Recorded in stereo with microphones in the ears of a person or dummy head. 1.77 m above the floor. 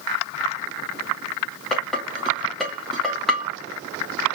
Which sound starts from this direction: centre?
Dishes clattering, at 1.7 s.